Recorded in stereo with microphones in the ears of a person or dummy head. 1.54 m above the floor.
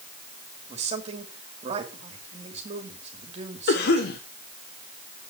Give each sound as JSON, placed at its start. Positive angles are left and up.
{"t": 0.7, "sound": "a man speaking", "side_deg": -30, "distance_m": 3.0}
{"t": 3.7, "sound": "a cough", "side_deg": 60, "distance_m": 1.4}